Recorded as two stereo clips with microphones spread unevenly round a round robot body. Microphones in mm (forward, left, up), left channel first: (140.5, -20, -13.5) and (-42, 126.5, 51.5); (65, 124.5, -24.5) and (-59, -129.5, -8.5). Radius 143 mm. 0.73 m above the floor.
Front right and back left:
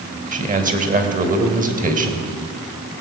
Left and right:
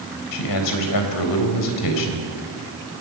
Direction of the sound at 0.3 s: 85° left.